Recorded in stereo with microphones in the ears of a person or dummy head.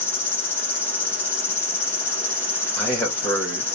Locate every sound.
0.0 s an insect: 5° left (ahead or behind), 0.9 m
2.8 s a man speaking: centre (ahead or behind), 1.3 m